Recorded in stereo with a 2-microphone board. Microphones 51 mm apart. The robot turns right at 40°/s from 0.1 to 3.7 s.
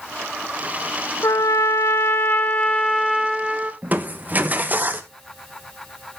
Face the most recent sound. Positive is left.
turn(degrees=-35)  # may be behind; listen again after turning